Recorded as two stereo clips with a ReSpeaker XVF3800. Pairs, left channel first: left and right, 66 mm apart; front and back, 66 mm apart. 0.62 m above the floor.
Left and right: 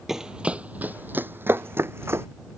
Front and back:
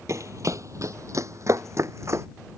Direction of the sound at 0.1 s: 170° right.